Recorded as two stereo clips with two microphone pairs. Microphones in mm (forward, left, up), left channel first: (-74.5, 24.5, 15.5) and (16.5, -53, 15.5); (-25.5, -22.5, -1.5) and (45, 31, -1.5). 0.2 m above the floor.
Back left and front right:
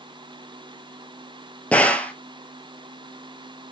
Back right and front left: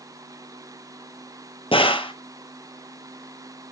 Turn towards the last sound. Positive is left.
turn(degrees=-140)